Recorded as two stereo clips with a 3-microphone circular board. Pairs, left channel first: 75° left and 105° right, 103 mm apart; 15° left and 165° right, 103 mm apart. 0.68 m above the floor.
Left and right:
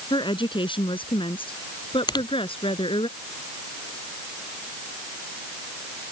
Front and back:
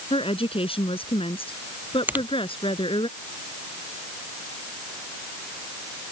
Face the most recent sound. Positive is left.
turn(degrees=120)